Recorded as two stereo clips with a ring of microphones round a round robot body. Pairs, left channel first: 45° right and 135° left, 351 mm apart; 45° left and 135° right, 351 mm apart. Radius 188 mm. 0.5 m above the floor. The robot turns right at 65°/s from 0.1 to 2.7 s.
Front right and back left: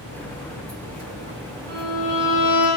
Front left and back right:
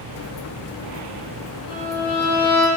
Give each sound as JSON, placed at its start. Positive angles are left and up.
{"t": 1.7, "sound": "a violin", "azimuth_deg": 120, "distance_m": 2.0}